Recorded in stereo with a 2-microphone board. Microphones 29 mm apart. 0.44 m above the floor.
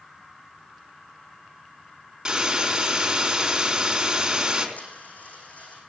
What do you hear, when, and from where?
2.2 s a hiss: 25° right (ahead or behind), 3.5 m
4.8 s a dropped coin: 65° left (ahead or behind), 6.5 m